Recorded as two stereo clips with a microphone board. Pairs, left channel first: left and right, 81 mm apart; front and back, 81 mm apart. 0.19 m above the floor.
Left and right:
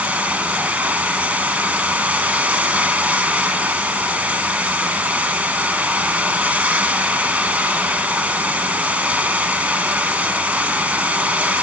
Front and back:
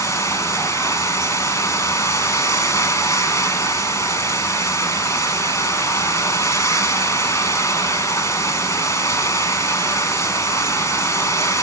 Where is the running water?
25° right, 1.4 m.